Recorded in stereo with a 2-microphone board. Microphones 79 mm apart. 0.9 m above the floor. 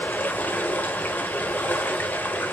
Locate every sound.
0.0 s running water: 25° left (ahead or behind), 0.9 m